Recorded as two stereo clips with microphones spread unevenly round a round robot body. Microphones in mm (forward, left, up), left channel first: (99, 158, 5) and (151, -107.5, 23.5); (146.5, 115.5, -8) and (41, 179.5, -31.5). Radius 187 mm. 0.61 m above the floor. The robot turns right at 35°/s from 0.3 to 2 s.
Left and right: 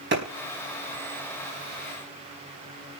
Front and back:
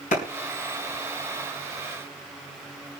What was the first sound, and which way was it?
A clap, 30° right.